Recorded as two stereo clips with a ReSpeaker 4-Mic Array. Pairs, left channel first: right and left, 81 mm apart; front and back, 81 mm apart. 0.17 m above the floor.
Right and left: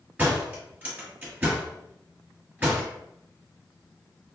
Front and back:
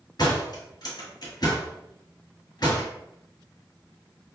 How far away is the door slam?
About 1.5 m.